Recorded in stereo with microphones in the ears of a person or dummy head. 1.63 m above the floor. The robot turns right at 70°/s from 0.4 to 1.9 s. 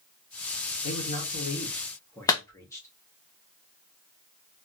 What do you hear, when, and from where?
0.8 s a man speaking: 90° left, 1.3 m; by 2.9 s 165° left, 1.3 m
2.3 s a clap: 15° left (ahead or behind), 0.7 m